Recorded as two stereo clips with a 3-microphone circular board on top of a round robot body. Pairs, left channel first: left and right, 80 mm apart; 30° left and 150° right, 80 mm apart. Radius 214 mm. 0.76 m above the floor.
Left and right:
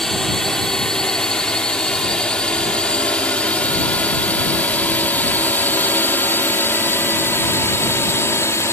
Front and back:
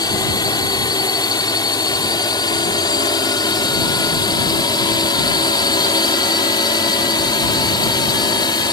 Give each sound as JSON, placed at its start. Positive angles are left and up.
{"t": 0.0, "sound": "a drone", "azimuth_deg": 5}